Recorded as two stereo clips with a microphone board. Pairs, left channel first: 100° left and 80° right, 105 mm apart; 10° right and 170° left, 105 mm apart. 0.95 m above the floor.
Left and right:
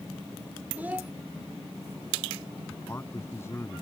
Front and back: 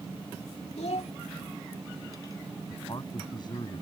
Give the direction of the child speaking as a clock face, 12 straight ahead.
12 o'clock.